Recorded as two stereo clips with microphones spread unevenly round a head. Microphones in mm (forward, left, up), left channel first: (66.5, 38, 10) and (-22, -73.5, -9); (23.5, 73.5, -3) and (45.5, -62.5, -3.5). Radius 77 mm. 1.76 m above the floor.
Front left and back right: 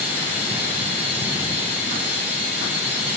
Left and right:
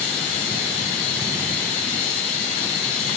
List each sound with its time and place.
0.0 s running water: 150° left, 3 m